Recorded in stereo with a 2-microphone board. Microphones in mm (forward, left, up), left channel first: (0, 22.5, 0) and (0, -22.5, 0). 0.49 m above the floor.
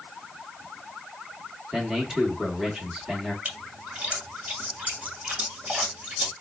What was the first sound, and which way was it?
A man speaking, 15° right (ahead or behind).